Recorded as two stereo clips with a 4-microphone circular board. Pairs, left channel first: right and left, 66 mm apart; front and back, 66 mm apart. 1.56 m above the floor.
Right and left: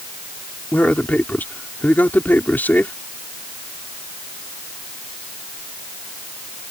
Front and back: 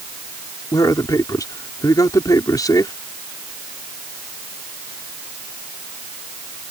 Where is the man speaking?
25° right.